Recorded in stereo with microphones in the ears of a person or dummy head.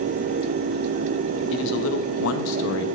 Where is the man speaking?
70° left (ahead or behind), 1.3 m; by 2.9 s 65° left (ahead or behind), 1.0 m.